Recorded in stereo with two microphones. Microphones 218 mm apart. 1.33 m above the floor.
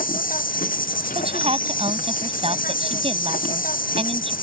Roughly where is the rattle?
No rattle in this recording.